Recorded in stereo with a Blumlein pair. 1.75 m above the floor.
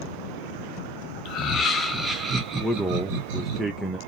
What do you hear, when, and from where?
1.2 s laughter: 35° left, 1.0 m; by 3.6 s 45° right, 1.7 m
2.6 s a man speaking: 5° right, 0.5 m